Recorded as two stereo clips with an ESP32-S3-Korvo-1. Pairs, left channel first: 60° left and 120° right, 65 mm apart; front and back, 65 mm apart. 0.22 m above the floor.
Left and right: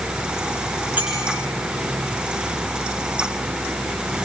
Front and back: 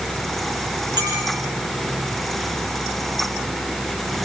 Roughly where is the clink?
Behind.